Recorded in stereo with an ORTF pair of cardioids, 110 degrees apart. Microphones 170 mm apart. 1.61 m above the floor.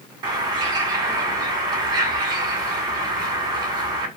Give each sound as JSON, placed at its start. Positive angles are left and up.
{"t": 0.2, "sound": "a bird", "azimuth_deg": -25, "distance_m": 1.7}